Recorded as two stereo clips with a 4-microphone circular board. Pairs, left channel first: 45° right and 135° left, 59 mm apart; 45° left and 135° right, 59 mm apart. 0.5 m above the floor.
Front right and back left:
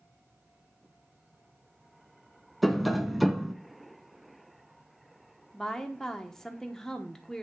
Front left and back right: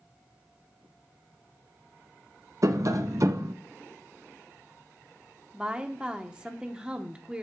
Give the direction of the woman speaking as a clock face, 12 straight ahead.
4 o'clock.